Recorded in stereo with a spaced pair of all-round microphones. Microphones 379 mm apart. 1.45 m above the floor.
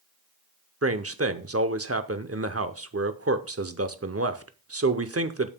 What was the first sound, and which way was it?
A man speaking, 40° right (ahead or behind).